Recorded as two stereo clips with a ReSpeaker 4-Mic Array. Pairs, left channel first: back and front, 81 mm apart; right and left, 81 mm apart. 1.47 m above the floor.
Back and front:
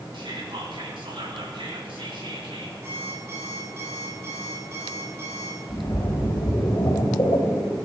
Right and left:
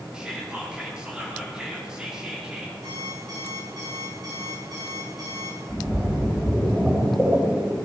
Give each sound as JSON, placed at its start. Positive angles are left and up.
{"t": 0.1, "sound": "whispering", "azimuth_deg": 10, "distance_m": 4.5}
{"t": 2.8, "sound": "an alarm clock", "azimuth_deg": 55, "distance_m": 8.0}
{"t": 5.7, "sound": "a splash", "azimuth_deg": 165, "distance_m": 3.0}